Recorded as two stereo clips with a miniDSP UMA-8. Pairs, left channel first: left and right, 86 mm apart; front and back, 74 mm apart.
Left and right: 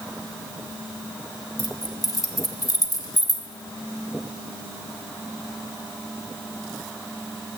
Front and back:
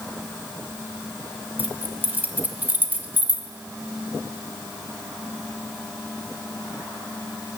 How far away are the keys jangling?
About 0.9 m.